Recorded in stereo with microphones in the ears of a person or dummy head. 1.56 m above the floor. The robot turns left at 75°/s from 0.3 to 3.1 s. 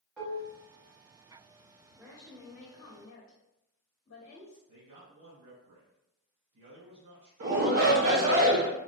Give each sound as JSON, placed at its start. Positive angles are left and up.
{"t": 0.2, "sound": "dishes clattering", "side_deg": 5, "distance_m": 1.1}
{"t": 1.9, "sound": "a woman speaking", "azimuth_deg": -155, "distance_m": 0.7}
{"t": 4.7, "sound": "a man speaking", "side_deg": -60, "distance_m": 1.9}
{"t": 7.4, "sound": "a shout", "side_deg": -50, "distance_m": 0.6}